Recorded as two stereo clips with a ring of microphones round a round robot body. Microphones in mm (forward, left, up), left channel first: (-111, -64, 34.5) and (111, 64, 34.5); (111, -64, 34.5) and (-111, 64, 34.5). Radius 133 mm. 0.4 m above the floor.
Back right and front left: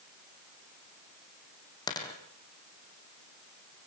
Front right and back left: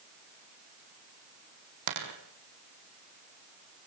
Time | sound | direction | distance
1.9 | a dropped coin | 135° left | 3.5 m